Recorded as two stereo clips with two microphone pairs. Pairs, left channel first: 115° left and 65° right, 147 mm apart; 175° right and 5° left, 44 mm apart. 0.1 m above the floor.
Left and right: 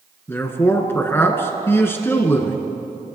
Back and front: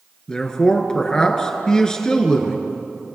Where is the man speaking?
150° left, 1.3 m.